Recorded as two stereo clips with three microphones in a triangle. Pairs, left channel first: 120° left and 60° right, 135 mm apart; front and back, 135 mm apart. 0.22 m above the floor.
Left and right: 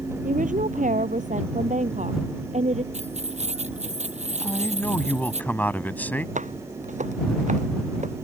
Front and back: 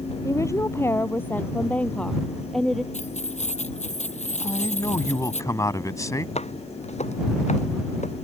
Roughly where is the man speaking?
Ahead left.